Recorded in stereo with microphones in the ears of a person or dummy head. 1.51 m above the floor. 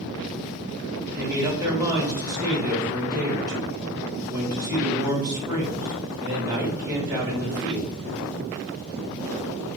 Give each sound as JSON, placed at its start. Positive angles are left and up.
{"t": 1.1, "sound": "a man speaking", "side_deg": -20, "distance_m": 1.7}